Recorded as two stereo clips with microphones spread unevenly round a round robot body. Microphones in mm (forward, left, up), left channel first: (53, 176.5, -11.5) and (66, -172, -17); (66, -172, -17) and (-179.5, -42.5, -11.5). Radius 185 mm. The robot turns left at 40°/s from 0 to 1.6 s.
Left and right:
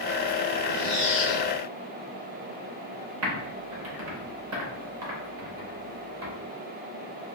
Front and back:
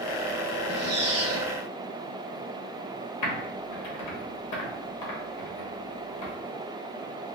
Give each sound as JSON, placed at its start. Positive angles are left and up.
{"t": 0.7, "sound": "a squeak", "azimuth_deg": 165, "distance_m": 0.8}
{"t": 3.2, "sound": "typing on a keyboard", "azimuth_deg": -40, "distance_m": 0.9}